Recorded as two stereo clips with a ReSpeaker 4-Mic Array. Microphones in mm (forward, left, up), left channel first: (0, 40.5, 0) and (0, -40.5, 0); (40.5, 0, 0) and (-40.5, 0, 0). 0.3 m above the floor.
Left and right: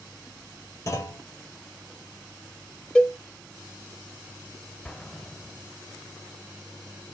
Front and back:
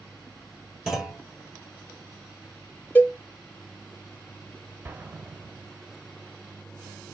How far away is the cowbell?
About 0.7 m.